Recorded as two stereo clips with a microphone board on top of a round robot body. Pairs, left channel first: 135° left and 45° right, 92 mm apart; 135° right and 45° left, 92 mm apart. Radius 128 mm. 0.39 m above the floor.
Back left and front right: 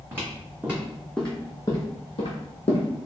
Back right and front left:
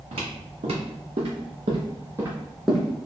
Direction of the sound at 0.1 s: 20° left.